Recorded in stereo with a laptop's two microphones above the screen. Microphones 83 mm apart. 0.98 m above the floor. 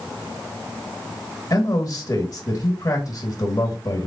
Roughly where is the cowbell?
I don't hear a cowbell.